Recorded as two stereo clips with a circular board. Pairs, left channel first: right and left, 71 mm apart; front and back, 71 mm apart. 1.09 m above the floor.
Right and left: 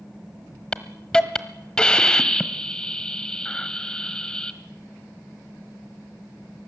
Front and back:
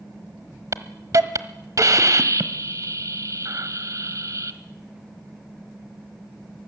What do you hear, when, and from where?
0.7 s a hiss: 165° right, 1.3 m